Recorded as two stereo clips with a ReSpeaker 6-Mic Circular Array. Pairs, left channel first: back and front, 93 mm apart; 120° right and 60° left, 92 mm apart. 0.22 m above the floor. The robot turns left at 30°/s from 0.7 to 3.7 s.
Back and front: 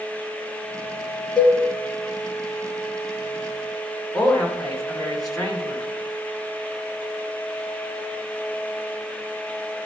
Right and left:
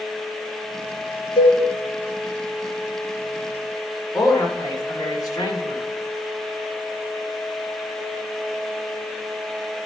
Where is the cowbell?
95° right, 2 m; by 1.6 s 100° right, 2 m.